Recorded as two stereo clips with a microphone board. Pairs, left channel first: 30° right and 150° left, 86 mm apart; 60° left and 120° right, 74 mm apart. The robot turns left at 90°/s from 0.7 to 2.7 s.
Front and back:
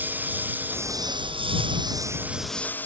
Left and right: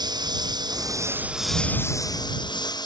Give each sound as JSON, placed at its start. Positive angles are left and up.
{"t": 0.0, "sound": "a lawn mower", "azimuth_deg": -140}